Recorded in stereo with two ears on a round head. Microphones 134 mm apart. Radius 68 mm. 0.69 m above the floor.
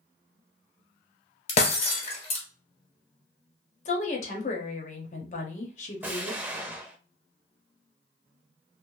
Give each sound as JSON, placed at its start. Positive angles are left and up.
{"t": 1.5, "sound": "breaking glass", "side_deg": 45, "distance_m": 1.3}
{"t": 3.9, "sound": "a woman speaking", "side_deg": 50, "distance_m": 0.9}
{"t": 6.0, "sound": "an explosion", "side_deg": -15, "distance_m": 0.5}